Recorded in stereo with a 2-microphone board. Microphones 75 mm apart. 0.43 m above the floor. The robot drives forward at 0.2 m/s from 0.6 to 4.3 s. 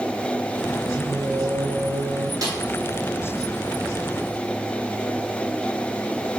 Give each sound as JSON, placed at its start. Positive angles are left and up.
{"t": 1.0, "sound": "singing", "side_deg": -35, "distance_m": 0.6}
{"t": 2.4, "sound": "a snare drum", "side_deg": -60, "distance_m": 2.5}